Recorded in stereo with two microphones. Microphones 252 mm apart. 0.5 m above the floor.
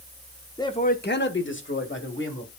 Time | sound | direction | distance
0.6 | a man speaking | 15° left (ahead or behind) | 0.7 m